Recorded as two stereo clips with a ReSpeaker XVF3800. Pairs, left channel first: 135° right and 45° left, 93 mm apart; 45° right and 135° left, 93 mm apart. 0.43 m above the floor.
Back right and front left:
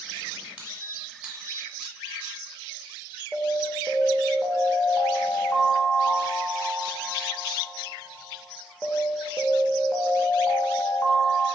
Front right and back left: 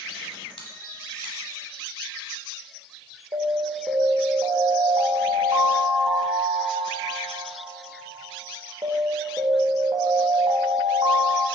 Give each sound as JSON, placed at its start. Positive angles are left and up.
{"t": 0.6, "sound": "a squeak", "azimuth_deg": -35, "distance_m": 1.0}
{"t": 3.3, "sound": "an alarm", "azimuth_deg": 150, "distance_m": 0.7}